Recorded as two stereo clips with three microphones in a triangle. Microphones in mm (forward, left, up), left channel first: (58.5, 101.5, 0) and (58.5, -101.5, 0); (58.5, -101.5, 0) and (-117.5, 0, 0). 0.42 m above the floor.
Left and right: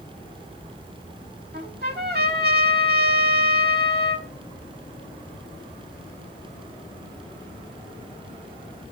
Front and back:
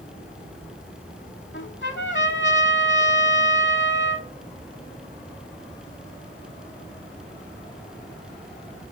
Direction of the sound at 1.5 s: 50° right.